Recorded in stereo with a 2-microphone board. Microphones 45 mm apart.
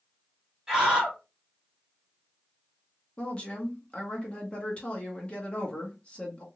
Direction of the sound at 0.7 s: 15° right (ahead or behind).